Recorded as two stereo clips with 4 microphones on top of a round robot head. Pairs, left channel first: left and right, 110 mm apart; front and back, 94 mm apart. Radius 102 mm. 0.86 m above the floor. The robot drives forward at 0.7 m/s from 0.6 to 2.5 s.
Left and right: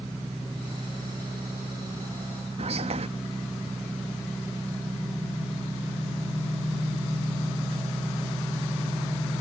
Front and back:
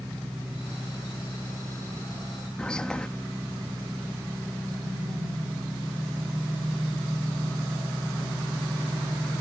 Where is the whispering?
80° right.